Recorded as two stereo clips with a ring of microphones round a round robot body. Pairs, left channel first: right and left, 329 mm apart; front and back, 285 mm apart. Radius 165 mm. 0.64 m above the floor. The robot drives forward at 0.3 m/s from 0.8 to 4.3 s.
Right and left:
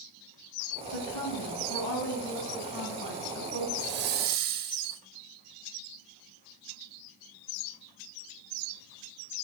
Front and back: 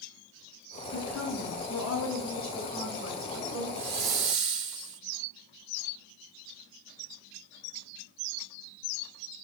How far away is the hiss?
About 0.6 m.